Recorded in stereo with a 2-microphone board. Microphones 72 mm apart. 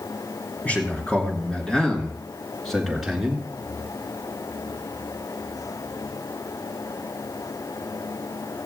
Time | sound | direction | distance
0.7 | a man speaking | 20° left (ahead or behind) | 3.5 m